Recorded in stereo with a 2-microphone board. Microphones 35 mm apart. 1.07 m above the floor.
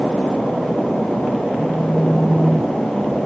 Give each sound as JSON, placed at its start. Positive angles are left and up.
{"t": 1.6, "sound": "a phone buzzing", "side_deg": 10}